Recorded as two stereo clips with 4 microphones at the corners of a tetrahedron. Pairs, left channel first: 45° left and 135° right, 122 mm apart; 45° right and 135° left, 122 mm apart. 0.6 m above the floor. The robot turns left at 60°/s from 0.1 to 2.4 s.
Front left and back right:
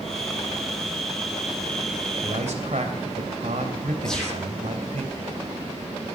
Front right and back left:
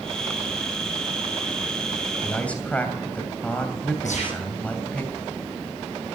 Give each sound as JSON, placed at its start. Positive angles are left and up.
{"t": 2.2, "sound": "a man speaking", "azimuth_deg": -115, "distance_m": 3.0}
{"t": 4.0, "sound": "a gunshot", "azimuth_deg": -40, "distance_m": 9.5}